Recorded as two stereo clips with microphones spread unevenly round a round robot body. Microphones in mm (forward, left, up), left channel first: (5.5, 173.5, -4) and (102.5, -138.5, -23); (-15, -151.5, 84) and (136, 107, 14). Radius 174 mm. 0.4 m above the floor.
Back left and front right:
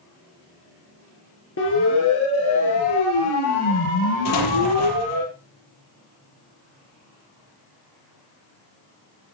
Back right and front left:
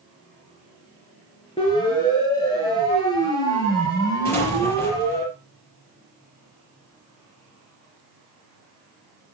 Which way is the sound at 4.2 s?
155° left.